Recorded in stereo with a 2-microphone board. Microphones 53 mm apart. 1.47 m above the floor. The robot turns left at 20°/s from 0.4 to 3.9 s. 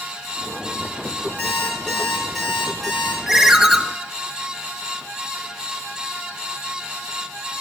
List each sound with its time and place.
1.4 s an alarm clock: 20° left, 3.5 m; by 3.2 s 15° right, 3.5 m
3.3 s a ringtone: 10° right (ahead or behind), 0.5 m; by 3.8 s 5° right (ahead or behind), 0.5 m